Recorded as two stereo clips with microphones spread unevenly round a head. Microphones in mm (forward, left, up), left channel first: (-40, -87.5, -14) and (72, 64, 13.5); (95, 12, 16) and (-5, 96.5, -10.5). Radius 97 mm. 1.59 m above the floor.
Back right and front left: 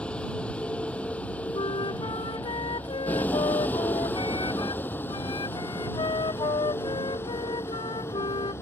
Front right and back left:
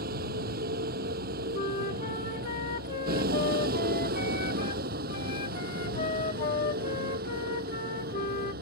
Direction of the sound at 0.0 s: 150° left.